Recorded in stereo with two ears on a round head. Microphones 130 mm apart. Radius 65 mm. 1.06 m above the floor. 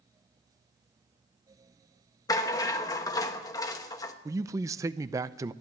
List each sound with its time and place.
2.3 s a rattle: 25° left (ahead or behind), 1.1 m
4.2 s a man speaking: 20° right (ahead or behind), 0.5 m